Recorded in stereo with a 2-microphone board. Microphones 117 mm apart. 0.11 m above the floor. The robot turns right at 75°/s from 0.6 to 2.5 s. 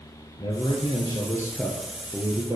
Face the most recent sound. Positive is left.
turn(degrees=-130)